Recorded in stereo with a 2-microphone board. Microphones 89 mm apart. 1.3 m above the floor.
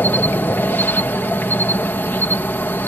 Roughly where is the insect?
Left.